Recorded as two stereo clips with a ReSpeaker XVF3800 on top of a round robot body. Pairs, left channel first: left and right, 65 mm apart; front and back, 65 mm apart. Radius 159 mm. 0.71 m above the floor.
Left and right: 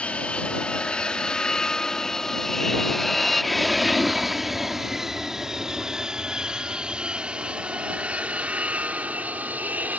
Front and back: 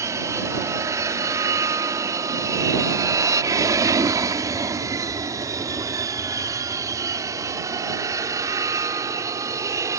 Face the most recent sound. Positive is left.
turn(degrees=-155)